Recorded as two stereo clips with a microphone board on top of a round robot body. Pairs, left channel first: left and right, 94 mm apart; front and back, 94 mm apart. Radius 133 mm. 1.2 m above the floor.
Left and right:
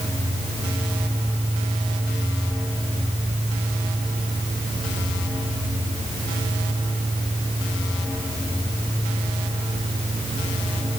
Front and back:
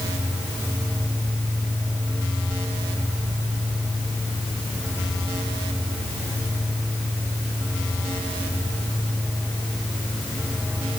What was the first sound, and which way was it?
Only background noise.